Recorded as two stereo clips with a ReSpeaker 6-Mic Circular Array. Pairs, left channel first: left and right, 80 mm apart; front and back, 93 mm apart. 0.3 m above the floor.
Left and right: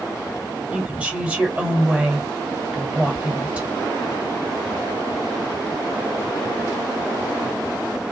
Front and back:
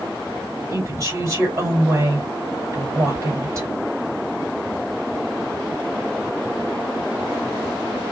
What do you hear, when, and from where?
0.7 s a woman speaking: 155° right, 1.9 m